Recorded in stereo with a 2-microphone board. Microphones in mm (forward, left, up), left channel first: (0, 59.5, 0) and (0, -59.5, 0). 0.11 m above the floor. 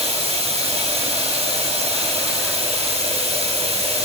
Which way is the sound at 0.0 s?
60° right (ahead or behind).